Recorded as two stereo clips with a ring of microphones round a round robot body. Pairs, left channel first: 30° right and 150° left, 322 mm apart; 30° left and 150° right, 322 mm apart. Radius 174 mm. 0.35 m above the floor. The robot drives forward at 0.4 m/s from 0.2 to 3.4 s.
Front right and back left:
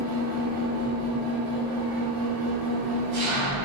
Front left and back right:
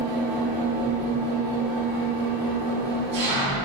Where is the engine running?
165° right, 3 m; by 3.6 s 170° right, 4.5 m.